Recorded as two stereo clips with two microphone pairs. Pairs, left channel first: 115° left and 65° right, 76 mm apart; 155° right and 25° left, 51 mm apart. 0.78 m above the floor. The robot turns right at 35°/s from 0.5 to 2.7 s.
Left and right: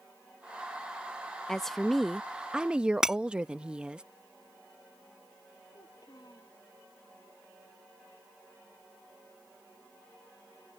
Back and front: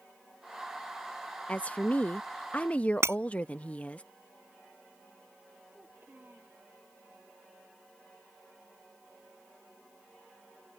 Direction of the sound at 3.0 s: 15° left.